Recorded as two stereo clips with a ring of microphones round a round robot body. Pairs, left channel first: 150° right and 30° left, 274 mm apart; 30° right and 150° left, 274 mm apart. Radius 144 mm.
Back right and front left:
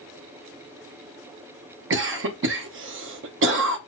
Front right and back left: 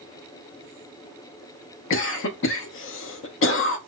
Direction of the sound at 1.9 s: Straight ahead.